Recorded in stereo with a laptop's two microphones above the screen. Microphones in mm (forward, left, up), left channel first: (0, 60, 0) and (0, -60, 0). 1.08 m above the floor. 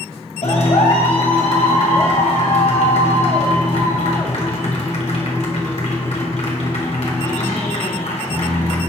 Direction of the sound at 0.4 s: 85° left.